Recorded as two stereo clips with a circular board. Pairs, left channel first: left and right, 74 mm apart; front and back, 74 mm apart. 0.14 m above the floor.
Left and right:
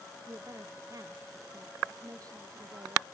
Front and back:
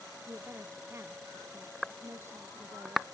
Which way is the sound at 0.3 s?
125° right.